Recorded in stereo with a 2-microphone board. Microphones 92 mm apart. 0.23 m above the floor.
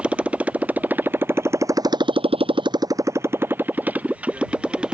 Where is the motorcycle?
10° right (ahead or behind).